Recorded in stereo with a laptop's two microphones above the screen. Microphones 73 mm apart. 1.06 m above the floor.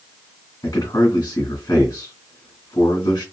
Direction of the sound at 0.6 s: 65° left (ahead or behind).